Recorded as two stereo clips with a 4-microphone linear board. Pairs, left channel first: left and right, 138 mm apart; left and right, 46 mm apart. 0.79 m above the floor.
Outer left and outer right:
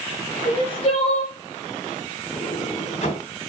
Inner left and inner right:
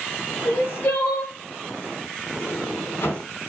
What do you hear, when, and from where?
0.5 s crying: 45° left (ahead or behind), 6 m
2.3 s a sliding door: 50° left (ahead or behind), 3.5 m